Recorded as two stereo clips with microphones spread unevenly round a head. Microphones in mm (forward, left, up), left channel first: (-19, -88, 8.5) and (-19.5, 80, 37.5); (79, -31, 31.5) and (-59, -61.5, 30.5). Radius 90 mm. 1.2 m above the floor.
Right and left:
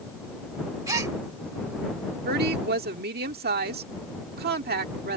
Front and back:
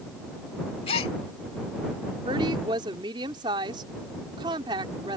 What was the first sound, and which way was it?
A gasp, 45° left.